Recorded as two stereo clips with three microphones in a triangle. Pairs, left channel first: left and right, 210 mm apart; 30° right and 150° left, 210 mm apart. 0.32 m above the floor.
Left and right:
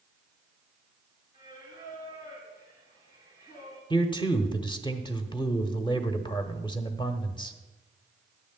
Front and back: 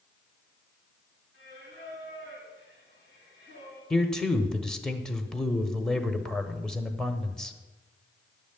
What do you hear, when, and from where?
1.3 s singing: 135° left, 6 m
3.9 s a man speaking: 55° left, 0.9 m